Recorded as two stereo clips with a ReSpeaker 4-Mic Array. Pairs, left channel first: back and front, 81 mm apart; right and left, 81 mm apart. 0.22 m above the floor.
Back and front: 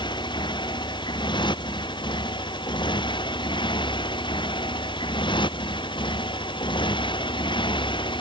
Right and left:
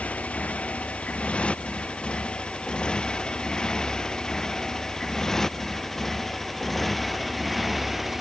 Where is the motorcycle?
165° right; by 8.2 s straight behind.